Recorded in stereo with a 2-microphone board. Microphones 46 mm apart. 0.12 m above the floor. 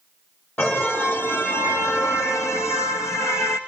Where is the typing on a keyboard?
I don't hear typing on a keyboard.